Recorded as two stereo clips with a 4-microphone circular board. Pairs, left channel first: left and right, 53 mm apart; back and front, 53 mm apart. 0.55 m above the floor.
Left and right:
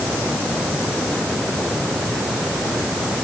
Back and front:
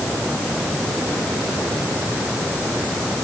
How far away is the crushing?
I don't hear crushing.